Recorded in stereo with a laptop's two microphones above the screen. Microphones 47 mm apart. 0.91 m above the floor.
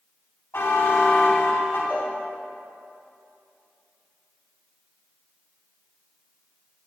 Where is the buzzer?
50° left (ahead or behind), 3.5 m.